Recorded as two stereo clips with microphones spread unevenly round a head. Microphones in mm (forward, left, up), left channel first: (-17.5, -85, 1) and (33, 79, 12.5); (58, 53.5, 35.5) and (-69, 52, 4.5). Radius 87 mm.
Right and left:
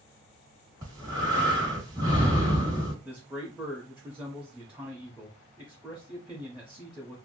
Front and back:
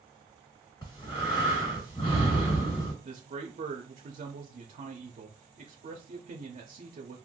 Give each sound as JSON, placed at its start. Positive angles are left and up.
{"t": 0.8, "sound": "breathing", "azimuth_deg": 20, "distance_m": 1.6}
{"t": 3.0, "sound": "a man speaking", "azimuth_deg": 155, "distance_m": 0.7}